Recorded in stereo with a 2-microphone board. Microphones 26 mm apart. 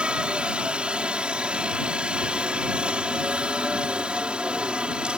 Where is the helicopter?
40° right (ahead or behind).